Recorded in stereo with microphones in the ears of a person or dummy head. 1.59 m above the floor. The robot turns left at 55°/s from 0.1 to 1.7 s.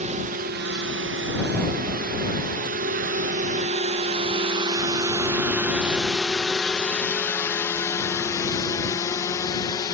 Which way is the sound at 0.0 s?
45° right (ahead or behind).